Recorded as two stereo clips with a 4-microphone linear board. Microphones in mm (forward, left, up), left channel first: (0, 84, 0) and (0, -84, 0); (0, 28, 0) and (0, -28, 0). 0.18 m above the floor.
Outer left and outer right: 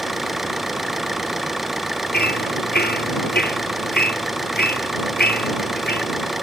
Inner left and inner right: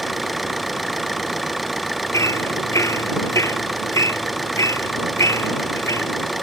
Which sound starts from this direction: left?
Hammering, at 2.1 s.